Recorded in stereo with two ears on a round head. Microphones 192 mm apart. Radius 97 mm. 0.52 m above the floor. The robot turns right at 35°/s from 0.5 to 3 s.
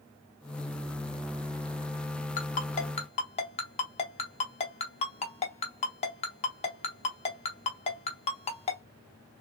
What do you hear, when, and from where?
2.4 s a ringtone: 40° left (ahead or behind), 0.8 m; by 8.8 s 30° left (ahead or behind), 0.8 m